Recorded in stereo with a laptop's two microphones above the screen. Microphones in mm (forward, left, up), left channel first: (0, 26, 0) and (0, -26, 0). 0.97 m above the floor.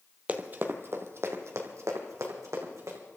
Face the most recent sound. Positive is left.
turn(degrees=-75)  # may be behind; listen again after turning